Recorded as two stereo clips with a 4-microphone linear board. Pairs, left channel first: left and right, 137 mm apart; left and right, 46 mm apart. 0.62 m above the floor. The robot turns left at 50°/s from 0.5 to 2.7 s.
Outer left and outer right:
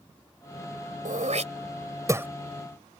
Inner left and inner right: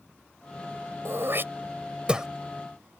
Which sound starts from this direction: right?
Throat clearing, at 1.1 s.